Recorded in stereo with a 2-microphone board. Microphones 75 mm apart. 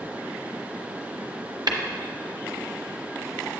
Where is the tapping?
65° right (ahead or behind), 0.7 m.